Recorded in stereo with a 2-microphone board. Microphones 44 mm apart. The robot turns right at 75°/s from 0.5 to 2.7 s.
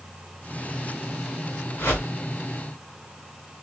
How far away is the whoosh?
About 2 m.